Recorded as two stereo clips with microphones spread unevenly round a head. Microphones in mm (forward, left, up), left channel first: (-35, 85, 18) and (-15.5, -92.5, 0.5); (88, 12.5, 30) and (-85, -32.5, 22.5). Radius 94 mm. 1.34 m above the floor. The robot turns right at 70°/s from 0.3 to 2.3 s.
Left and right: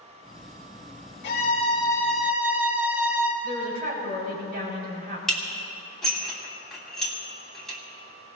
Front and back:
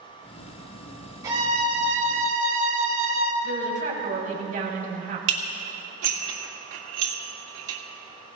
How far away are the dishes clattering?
About 2.5 m.